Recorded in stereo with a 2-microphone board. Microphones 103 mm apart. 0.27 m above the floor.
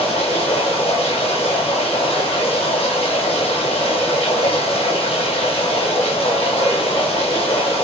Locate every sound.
0.0 s running water: 75° left (ahead or behind), 10 m